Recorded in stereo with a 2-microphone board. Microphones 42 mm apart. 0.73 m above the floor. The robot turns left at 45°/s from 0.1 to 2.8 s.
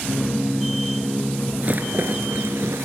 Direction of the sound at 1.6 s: 35° right (ahead or behind).